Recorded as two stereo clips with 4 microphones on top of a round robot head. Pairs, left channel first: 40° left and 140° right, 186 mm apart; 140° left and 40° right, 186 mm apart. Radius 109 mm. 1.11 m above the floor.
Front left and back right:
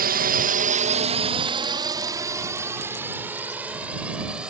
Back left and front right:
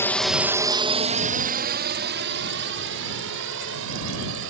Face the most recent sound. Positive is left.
turn(degrees=-55)